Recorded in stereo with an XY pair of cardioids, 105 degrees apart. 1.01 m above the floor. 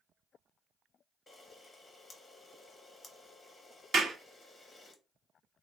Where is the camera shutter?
30° left, 0.8 m.